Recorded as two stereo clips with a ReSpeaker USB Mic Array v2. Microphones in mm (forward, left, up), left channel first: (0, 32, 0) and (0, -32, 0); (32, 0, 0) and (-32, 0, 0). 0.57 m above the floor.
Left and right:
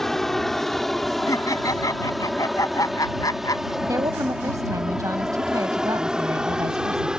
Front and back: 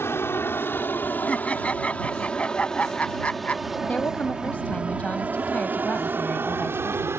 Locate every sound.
0.0 s an aircraft: 10° left; by 7.2 s 160° right
1.3 s laughter: 70° left
3.8 s a woman speaking: 65° right